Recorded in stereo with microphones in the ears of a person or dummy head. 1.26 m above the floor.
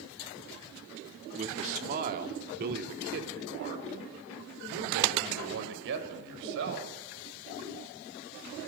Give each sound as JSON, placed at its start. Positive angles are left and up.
{"t": 1.4, "sound": "a man speaking", "side_deg": -40, "distance_m": 2.5}